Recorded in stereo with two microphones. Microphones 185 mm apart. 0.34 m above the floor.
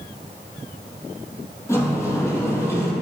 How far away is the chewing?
I don't hear chewing.